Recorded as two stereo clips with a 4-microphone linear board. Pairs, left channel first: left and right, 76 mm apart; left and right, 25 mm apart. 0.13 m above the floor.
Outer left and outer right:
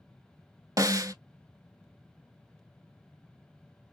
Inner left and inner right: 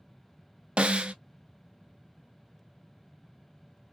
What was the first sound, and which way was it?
A snare drum, 50° right (ahead or behind).